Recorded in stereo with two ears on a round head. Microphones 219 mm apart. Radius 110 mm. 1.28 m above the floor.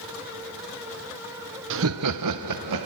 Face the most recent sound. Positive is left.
turn(degrees=-85)